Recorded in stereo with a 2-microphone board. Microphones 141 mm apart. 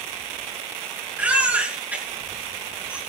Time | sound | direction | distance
1.2 | a baby crying | 10° right (ahead or behind) | 7 m